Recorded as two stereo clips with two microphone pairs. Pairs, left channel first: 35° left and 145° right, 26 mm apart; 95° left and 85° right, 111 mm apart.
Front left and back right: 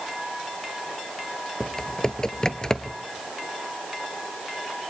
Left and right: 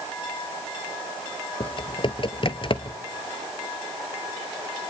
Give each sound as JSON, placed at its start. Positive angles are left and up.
{"t": 1.6, "sound": "typing on a keyboard", "azimuth_deg": 85, "distance_m": 0.7}